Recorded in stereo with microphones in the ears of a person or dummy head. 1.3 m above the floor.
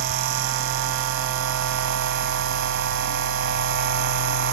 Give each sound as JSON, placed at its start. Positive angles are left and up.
{"t": 0.0, "sound": "a machine running", "side_deg": -60, "distance_m": 2.0}